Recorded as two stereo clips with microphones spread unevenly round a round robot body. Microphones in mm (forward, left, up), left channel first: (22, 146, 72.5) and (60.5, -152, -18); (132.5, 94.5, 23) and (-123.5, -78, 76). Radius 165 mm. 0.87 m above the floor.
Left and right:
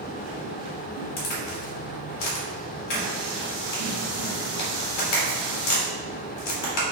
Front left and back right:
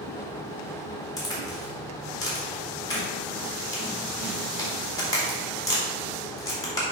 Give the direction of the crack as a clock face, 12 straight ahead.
8 o'clock.